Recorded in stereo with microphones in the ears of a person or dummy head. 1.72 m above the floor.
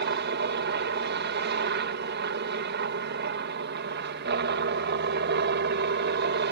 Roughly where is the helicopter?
Right.